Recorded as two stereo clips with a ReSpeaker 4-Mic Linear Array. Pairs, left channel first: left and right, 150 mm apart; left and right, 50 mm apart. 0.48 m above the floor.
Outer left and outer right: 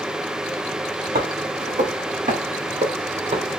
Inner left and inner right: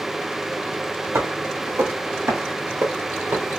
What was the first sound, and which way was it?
Footsteps, 70° right (ahead or behind).